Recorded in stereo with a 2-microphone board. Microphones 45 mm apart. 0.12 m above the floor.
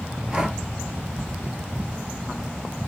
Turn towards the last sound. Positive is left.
turn(degrees=-20)  # may be behind; listen again after turning